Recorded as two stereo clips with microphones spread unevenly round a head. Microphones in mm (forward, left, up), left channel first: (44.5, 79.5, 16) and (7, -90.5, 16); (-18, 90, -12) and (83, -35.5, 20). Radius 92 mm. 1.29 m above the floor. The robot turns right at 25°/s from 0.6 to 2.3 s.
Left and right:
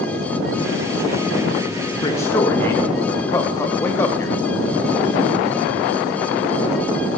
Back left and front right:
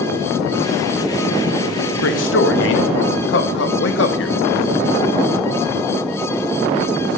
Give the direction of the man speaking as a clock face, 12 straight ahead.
7 o'clock.